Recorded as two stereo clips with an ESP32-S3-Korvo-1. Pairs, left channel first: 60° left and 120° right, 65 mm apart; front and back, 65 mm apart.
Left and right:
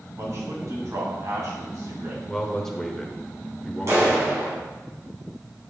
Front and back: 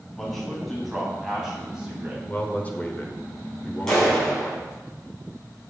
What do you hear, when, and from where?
0.2 s a man speaking: 85° right, 2.5 m; by 2.2 s 110° right, 2 m
2.3 s a man speaking: 15° right, 1.0 m
3.9 s a clap: 80° right, 3.5 m